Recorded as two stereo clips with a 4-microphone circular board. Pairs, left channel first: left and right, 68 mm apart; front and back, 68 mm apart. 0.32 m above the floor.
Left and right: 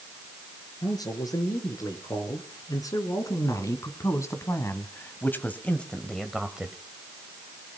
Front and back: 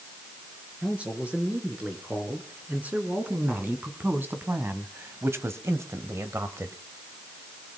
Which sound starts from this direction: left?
A man speaking, at 0.8 s.